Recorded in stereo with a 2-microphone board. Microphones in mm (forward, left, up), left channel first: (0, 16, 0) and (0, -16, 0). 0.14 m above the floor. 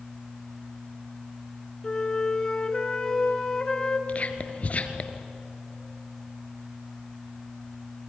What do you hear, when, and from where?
1.8 s a flute: 20° left (ahead or behind), 1.7 m
4.1 s whispering: 45° left (ahead or behind), 2 m